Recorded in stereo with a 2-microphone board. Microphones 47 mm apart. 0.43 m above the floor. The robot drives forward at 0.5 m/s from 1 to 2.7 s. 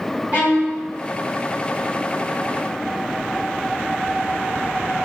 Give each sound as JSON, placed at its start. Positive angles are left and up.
{"t": 0.3, "sound": "a violin", "side_deg": -30, "distance_m": 1.9}